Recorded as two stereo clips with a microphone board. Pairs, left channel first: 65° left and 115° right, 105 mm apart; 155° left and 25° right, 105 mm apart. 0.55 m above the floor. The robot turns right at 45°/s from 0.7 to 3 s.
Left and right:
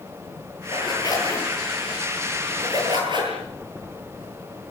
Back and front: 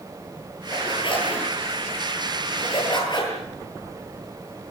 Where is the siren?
I don't hear a siren.